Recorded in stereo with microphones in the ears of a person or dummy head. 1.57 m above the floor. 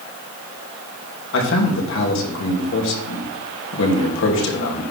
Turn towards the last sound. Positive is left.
turn(degrees=70)  # may be behind; listen again after turning